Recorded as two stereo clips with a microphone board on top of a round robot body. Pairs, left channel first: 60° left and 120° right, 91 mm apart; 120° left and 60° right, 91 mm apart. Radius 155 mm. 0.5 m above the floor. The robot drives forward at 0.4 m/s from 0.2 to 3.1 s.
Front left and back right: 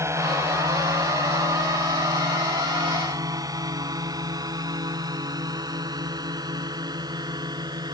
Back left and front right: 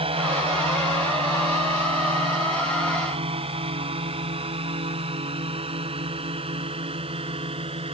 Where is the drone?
60° right; by 7.9 s 75° right.